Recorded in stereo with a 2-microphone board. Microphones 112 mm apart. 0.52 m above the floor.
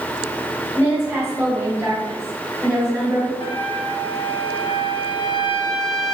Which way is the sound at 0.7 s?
20° right (ahead or behind).